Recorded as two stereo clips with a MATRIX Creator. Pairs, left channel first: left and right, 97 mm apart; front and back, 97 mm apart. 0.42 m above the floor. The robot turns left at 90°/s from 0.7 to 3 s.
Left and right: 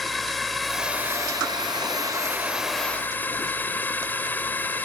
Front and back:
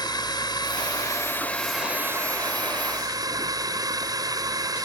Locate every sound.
0.0 s a drone: straight ahead; by 4.8 s 155° left